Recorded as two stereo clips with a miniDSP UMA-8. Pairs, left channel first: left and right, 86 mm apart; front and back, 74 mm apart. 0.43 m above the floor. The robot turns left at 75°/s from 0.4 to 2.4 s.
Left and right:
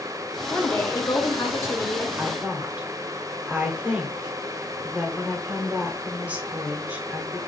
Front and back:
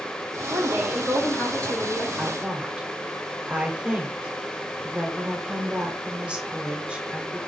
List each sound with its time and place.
0.5 s a woman speaking: 150° left, 0.9 m; by 2.1 s 35° left, 0.9 m
2.2 s a woman speaking: 110° right, 0.8 m; by 7.4 s 130° right, 0.8 m